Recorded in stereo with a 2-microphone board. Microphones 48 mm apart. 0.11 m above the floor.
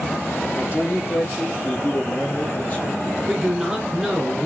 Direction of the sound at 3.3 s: 5° right (ahead or behind).